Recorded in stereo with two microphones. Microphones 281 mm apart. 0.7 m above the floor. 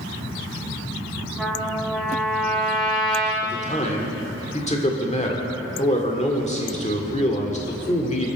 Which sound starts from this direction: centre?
A trumpet, at 1.4 s.